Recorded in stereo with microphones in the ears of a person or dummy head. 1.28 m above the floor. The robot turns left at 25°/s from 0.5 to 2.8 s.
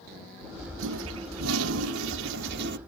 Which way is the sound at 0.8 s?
70° right.